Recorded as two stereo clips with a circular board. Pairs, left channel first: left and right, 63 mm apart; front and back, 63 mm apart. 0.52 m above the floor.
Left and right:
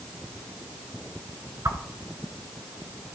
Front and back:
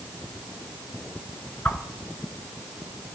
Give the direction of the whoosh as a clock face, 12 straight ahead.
2 o'clock.